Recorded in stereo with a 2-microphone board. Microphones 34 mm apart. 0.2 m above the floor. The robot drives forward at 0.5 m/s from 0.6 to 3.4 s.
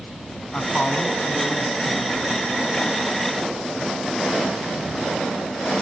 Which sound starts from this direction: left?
A man speaking, at 0.5 s.